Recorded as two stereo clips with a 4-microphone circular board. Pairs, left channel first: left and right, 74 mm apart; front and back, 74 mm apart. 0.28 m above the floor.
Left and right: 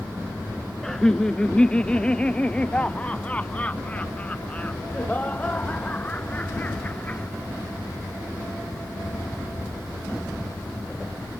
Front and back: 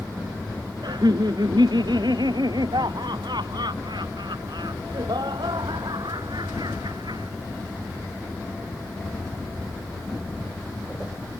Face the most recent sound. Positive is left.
turn(degrees=160)